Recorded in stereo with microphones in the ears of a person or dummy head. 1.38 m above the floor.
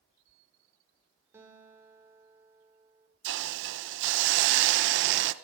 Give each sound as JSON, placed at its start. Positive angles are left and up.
{"t": 1.3, "sound": "a guitar", "side_deg": -15, "distance_m": 5.5}
{"t": 3.2, "sound": "a hiss", "side_deg": -70, "distance_m": 1.1}